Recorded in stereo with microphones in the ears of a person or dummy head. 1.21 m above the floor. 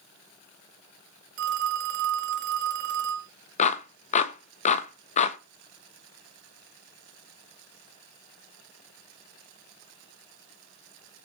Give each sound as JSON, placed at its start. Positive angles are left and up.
{"t": 1.4, "sound": "a phone ringing", "side_deg": -70, "distance_m": 1.1}
{"t": 3.6, "sound": "a clap", "side_deg": 40, "distance_m": 1.0}